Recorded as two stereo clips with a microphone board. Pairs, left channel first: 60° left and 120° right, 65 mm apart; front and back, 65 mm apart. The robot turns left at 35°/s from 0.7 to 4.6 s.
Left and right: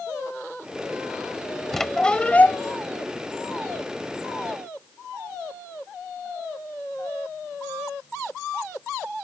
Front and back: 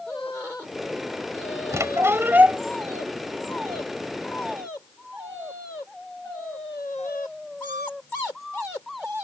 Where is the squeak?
150° left; by 2.6 s 115° left.